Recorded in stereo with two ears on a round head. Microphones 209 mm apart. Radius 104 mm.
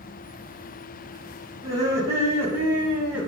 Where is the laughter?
15° right (ahead or behind), 5 m; by 3.3 s 5° right (ahead or behind), 5 m.